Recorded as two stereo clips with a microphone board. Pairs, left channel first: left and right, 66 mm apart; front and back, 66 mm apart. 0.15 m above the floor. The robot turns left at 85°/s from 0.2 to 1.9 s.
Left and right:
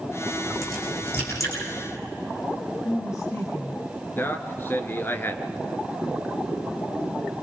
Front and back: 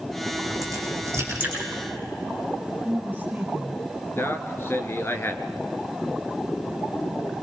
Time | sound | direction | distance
0.3 | a crack | 150° right | 8.5 m
2.8 | a woman speaking | 115° left | 3.5 m
4.2 | a man speaking | 40° left | 2 m